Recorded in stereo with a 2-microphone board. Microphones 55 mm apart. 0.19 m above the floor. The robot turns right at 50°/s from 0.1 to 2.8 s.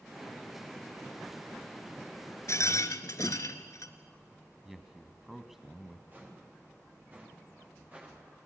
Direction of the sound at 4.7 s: 5° right (ahead or behind).